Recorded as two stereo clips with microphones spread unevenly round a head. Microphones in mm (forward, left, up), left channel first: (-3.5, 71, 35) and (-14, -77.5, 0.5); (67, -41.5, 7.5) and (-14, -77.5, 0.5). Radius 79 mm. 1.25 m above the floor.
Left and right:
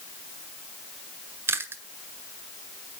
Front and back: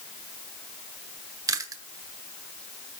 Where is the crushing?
No crushing in this recording.